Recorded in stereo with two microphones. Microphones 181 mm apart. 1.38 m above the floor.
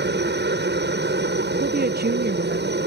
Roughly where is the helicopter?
Right.